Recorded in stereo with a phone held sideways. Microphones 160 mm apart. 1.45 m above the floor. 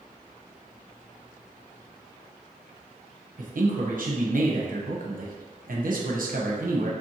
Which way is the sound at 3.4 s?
70° right (ahead or behind).